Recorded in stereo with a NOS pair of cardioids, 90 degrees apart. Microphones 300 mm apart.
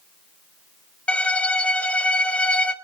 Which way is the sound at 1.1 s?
5° left.